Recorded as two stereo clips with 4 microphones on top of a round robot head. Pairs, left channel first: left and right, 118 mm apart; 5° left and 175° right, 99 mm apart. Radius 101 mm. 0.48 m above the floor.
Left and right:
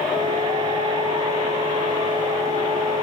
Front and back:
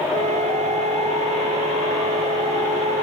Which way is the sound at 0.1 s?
150° right.